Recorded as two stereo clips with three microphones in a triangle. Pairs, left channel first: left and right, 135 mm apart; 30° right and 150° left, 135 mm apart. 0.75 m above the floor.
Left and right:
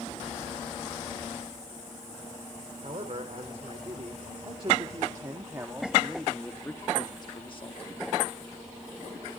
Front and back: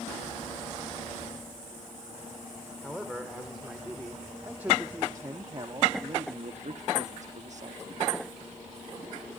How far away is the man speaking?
About 2.5 m.